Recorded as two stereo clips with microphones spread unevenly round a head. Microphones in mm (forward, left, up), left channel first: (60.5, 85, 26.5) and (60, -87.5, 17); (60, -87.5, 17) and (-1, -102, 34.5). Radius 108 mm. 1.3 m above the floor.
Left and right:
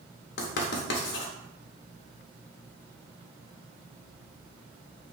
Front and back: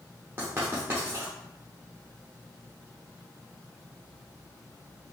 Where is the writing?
115° left, 0.7 m.